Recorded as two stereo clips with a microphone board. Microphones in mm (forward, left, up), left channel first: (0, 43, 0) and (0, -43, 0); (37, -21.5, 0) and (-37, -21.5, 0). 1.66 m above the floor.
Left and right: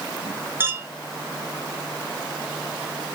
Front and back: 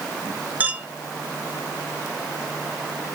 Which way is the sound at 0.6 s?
135° right.